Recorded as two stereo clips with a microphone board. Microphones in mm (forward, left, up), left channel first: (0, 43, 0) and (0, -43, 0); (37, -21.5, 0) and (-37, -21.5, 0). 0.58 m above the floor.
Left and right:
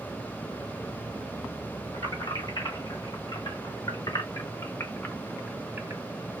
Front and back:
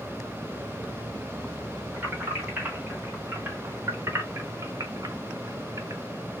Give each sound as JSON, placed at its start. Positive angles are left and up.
{"t": 1.9, "sound": "keys jangling", "azimuth_deg": 110, "distance_m": 2.0}